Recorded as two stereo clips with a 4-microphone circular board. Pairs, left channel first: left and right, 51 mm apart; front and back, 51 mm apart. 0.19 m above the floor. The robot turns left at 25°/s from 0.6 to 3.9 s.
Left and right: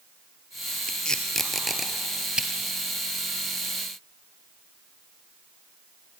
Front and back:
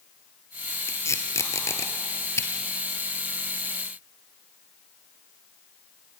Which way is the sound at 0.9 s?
15° left.